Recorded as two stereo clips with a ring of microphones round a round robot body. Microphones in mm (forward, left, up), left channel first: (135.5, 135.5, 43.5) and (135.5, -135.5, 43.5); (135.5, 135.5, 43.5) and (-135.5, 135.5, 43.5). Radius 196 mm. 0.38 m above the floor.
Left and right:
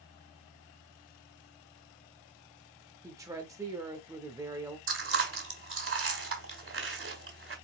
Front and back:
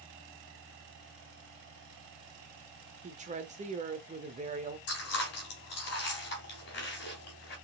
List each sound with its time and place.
3.0 s a woman speaking: 155° right, 1.0 m
4.9 s chewing: 55° right, 2.5 m